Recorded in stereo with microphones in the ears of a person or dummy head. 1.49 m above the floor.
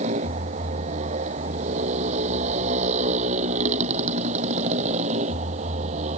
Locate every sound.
0.0 s a motorcycle: 35° right (ahead or behind)